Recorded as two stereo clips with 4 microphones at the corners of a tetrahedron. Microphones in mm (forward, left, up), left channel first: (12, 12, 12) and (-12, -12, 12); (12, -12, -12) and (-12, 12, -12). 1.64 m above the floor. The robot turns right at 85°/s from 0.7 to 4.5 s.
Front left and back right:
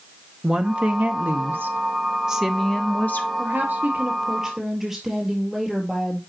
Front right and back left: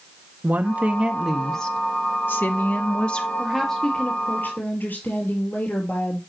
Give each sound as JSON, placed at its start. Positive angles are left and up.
{"t": 0.4, "sound": "a woman speaking", "azimuth_deg": 165, "distance_m": 1.1}
{"t": 3.4, "sound": "a woman speaking", "azimuth_deg": -150, "distance_m": 3.5}